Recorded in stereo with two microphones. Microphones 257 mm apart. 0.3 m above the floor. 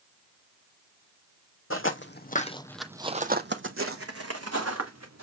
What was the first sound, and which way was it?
Footsteps, 55° left (ahead or behind).